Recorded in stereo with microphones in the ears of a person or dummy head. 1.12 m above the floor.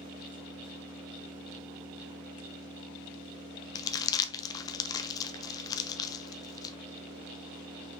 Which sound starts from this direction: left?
Crumpling, at 3.8 s.